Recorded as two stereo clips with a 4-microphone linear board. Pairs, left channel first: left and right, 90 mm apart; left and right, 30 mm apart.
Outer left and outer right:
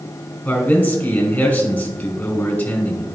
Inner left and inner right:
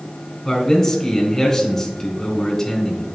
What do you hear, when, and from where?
0.5 s a man speaking: 15° left (ahead or behind), 3 m